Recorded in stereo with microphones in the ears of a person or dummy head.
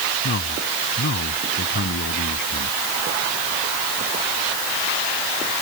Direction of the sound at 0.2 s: 50° left (ahead or behind).